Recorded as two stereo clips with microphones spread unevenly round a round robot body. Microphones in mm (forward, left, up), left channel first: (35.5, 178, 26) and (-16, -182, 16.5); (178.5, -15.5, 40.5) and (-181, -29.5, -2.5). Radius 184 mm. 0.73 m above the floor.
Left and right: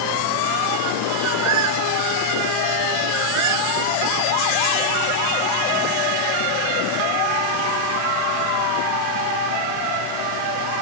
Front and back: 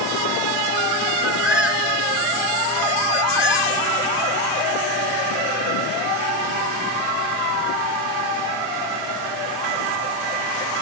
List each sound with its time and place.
1.2 s a bird: 90° right